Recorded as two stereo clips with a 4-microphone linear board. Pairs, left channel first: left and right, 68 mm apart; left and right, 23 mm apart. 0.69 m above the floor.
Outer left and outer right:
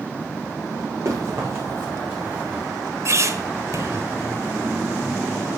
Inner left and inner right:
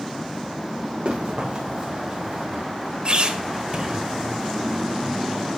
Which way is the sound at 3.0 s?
45° right (ahead or behind).